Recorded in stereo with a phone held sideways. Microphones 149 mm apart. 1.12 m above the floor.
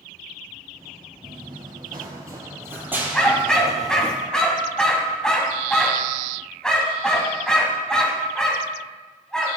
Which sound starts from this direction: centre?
A dog barking, at 3.1 s.